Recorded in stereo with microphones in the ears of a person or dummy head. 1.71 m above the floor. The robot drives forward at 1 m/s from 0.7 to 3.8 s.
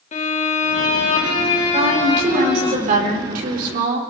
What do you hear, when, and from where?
0.1 s a violin: 40° left (ahead or behind), 3.5 m; by 2.7 s 25° left (ahead or behind), 5.5 m
1.7 s a woman speaking: 40° right (ahead or behind), 7 m; by 4.0 s 55° right (ahead or behind), 5.5 m